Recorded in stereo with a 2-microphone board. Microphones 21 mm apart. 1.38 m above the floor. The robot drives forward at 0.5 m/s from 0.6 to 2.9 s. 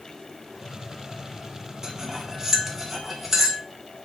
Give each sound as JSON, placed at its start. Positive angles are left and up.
{"t": 1.8, "sound": "cutlery clinking", "side_deg": -30, "distance_m": 0.6}